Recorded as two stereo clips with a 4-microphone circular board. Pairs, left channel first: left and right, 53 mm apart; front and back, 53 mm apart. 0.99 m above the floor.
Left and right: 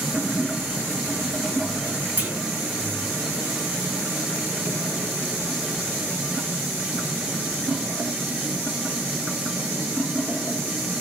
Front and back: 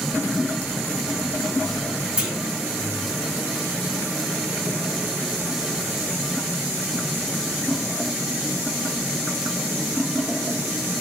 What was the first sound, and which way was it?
A clunk, 120° right.